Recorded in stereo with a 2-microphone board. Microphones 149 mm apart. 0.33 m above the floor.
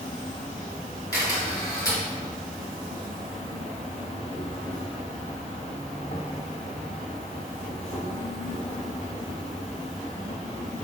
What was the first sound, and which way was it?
An insect, 45° left (ahead or behind).